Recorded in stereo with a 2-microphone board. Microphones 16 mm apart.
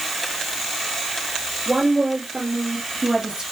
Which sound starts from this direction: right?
A woman speaking, at 1.7 s.